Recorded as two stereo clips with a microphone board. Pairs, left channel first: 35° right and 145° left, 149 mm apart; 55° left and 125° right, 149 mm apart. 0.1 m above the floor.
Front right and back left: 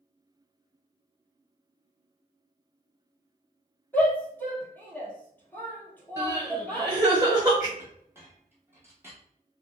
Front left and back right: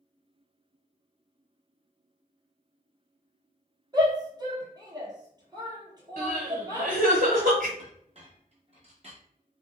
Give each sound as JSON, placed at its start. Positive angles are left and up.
{"t": 3.9, "sound": "a shout", "azimuth_deg": -100, "distance_m": 1.3}
{"t": 6.2, "sound": "crying", "azimuth_deg": -145, "distance_m": 1.4}
{"t": 7.8, "sound": "a clink", "azimuth_deg": -145, "distance_m": 1.1}